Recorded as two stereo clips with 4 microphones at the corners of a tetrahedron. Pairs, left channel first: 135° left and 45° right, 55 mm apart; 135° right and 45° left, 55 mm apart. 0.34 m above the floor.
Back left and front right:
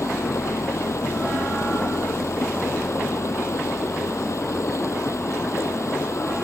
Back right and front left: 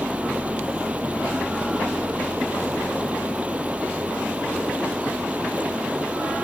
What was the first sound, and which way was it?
Running water, 110° left.